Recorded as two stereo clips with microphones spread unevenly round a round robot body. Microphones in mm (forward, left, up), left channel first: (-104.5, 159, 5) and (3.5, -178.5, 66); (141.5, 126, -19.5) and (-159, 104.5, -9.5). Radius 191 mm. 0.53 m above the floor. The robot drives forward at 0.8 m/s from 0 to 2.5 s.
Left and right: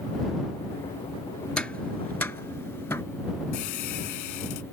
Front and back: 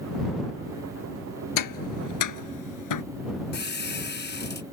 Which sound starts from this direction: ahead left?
A squeak, at 3.5 s.